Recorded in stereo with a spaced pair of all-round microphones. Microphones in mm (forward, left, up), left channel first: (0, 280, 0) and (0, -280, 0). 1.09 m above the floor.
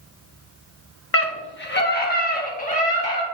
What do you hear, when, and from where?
1.1 s a scream: 25° left (ahead or behind), 1.1 m; by 3.2 s 10° left (ahead or behind), 2.5 m